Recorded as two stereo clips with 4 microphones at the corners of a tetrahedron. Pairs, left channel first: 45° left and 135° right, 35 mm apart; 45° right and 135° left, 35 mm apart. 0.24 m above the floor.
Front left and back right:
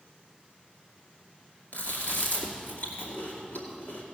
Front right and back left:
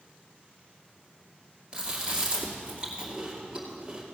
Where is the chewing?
70° left, 2.5 m.